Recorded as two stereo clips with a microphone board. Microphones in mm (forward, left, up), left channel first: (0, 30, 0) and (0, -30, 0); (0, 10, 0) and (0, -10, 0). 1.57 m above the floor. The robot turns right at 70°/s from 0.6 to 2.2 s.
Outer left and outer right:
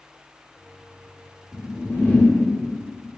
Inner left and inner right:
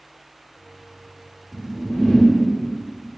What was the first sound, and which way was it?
A whoosh, 95° left.